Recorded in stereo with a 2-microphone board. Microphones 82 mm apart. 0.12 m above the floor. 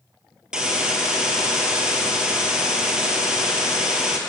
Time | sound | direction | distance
0.5 | a hiss | 10° right (ahead or behind) | 2 m